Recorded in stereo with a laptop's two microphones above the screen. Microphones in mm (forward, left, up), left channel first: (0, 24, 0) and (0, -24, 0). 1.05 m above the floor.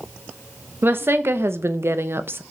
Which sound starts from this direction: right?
A woman speaking, at 0.8 s.